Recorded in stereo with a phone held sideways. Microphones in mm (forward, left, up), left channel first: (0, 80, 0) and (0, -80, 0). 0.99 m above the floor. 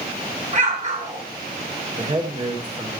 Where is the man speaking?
35° right (ahead or behind), 3 m.